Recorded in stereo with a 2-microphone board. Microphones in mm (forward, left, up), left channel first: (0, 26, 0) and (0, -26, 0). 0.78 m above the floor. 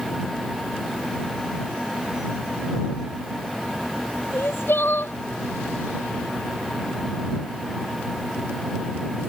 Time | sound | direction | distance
4.3 | crying | 45° left (ahead or behind) | ?